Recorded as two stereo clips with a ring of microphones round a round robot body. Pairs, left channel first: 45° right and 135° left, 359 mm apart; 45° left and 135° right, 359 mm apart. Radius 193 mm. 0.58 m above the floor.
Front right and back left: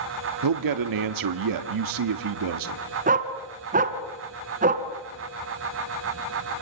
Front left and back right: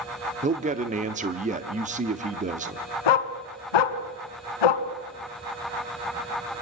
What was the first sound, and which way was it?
A man speaking, 155° left.